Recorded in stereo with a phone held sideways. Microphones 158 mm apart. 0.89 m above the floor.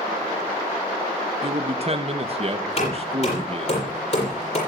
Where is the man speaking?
40° right (ahead or behind), 1.2 m.